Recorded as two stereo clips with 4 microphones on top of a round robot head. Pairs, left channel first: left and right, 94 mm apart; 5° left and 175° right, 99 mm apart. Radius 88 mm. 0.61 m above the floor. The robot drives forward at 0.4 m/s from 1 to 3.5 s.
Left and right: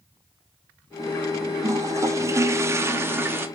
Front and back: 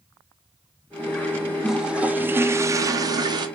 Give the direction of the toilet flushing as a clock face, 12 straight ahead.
3 o'clock.